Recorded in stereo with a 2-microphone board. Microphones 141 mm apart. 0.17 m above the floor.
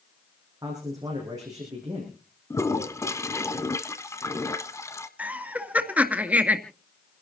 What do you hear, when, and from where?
0.6 s a man speaking: 25° right (ahead or behind), 7.5 m
2.5 s a toilet flushing: 20° left (ahead or behind), 1.1 m
5.2 s laughter: 10° right (ahead or behind), 2 m